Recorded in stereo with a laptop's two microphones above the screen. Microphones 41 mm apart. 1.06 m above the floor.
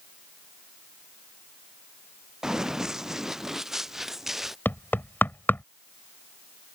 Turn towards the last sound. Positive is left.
turn(degrees=50)  # may be behind; listen again after turning